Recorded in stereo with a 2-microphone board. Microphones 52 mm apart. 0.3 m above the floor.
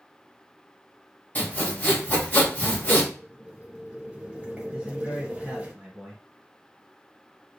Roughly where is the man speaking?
Centre.